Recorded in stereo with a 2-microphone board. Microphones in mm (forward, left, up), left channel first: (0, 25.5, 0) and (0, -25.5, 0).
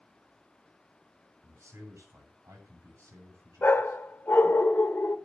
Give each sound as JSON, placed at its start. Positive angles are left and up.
{"t": 1.4, "sound": "a man speaking", "side_deg": -80, "distance_m": 9.5}
{"t": 3.6, "sound": "a dog barking", "side_deg": 45, "distance_m": 1.7}